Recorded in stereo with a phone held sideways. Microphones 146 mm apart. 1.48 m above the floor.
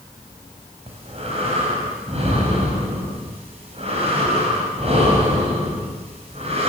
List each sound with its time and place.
0.9 s breathing: 45° right (ahead or behind), 5.5 m